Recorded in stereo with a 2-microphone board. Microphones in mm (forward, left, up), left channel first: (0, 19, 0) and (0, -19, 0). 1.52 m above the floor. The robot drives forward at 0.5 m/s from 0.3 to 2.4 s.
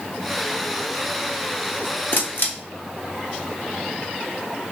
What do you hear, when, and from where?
2.1 s a camera shutter: 60° left (ahead or behind), 0.8 m; by 2.5 s 65° left (ahead or behind), 0.8 m